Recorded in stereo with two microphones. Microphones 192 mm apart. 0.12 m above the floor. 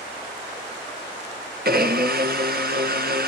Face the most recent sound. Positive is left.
turn(degrees=-55)  # may be behind; listen again after turning